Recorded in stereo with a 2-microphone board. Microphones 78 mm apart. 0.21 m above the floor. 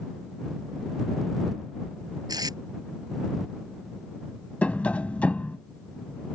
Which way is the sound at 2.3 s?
60° right (ahead or behind).